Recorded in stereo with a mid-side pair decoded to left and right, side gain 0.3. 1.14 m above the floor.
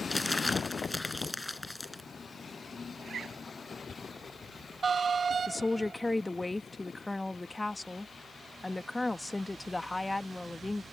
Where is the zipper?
65° right.